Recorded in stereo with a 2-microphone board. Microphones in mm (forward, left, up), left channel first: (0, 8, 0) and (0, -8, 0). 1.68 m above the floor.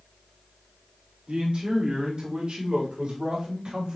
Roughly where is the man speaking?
Right.